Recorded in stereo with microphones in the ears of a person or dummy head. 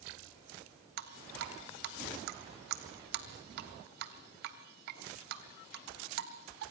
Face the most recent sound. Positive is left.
turn(degrees=-60)  # may be behind; listen again after turning